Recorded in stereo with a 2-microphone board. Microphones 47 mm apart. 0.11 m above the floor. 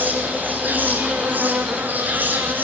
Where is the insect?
40° right (ahead or behind), 1.9 m.